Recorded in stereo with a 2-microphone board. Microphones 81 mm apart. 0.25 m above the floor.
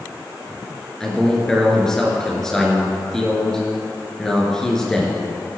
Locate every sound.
1.0 s a man speaking: 5° left (ahead or behind), 3.5 m